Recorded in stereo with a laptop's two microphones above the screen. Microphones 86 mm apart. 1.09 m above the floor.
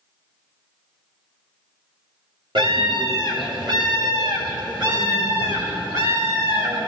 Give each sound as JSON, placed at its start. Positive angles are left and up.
{"t": 2.5, "sound": "a scream", "side_deg": -70, "distance_m": 3.0}